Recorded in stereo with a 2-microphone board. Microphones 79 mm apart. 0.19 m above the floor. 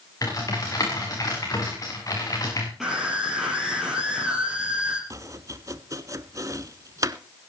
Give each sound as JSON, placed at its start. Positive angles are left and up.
{"t": 0.2, "sound": "typing on a keyboard", "side_deg": 45, "distance_m": 6.0}
{"t": 2.8, "sound": "a scream", "side_deg": 0, "distance_m": 3.5}
{"t": 5.1, "sound": "chopping", "side_deg": -45, "distance_m": 0.9}